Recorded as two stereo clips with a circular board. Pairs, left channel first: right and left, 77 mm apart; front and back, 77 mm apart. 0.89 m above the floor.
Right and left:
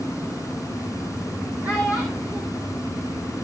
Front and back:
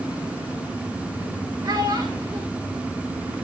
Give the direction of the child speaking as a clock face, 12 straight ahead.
7 o'clock.